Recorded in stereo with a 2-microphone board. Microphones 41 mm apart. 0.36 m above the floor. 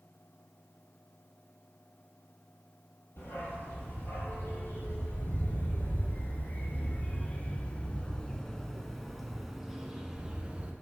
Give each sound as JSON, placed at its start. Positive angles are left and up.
{"t": 3.2, "sound": "a dog barking", "side_deg": 65, "distance_m": 4.0}